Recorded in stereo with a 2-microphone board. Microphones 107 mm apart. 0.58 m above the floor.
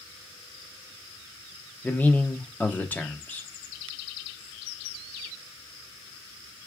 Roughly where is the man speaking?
Centre.